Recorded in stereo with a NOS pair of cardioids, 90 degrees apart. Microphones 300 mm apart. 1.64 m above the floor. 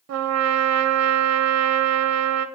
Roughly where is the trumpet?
Ahead right.